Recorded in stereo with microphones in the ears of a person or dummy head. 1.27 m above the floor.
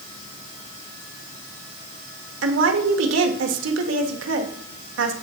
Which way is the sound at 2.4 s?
80° right.